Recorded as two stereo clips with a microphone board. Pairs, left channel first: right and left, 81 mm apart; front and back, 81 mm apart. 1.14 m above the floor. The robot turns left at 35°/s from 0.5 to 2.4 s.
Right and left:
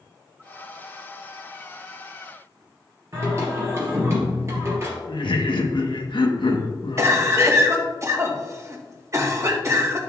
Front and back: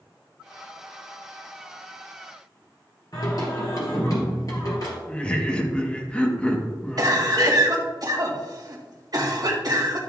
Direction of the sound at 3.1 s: 40° left.